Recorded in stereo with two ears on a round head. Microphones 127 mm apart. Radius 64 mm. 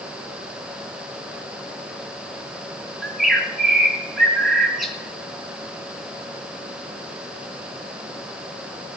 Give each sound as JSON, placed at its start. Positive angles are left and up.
{"t": 3.0, "sound": "a bird", "side_deg": 0, "distance_m": 2.5}